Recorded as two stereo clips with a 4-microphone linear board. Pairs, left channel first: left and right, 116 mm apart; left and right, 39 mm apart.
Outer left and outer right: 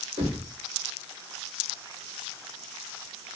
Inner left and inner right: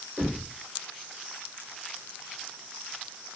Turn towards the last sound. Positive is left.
turn(degrees=-60)  # may be behind; listen again after turning